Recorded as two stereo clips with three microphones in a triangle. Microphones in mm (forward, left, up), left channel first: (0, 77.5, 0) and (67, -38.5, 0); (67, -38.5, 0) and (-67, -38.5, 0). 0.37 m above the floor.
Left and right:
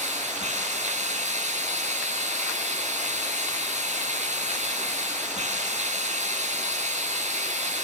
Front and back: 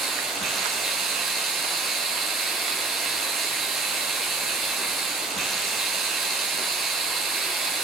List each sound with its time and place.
0.0 s running water: 90° right, 5 m